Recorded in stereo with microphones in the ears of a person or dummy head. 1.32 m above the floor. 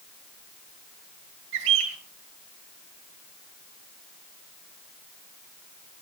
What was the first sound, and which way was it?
A bird, 75° right (ahead or behind).